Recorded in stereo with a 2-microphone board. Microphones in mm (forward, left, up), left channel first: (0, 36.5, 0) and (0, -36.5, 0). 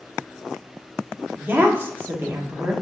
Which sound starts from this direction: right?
A woman speaking, at 1.4 s.